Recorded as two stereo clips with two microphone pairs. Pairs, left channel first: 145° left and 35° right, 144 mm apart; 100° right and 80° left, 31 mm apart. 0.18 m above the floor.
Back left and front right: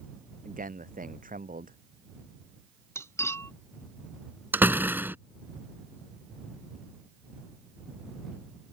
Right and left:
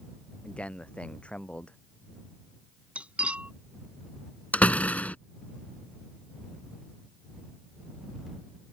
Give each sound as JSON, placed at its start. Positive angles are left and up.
{"t": 0.4, "sound": "a man speaking", "azimuth_deg": -50}
{"t": 3.0, "sound": "cutlery clinking", "azimuth_deg": 80}
{"t": 4.5, "sound": "a door slam", "azimuth_deg": -110}